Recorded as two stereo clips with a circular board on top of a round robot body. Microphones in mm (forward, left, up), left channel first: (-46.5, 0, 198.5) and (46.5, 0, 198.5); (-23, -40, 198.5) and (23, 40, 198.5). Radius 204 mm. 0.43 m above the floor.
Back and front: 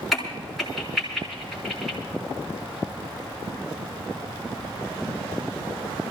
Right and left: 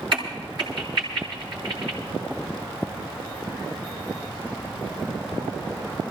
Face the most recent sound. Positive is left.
turn(degrees=90)